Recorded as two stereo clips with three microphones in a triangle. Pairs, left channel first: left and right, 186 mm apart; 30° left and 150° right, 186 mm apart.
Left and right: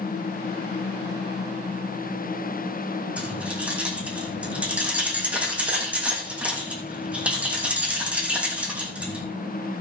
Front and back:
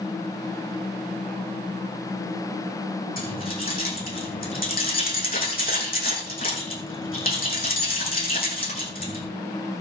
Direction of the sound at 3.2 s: 5° right.